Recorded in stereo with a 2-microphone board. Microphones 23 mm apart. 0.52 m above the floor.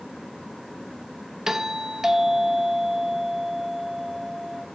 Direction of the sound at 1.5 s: 20° right (ahead or behind).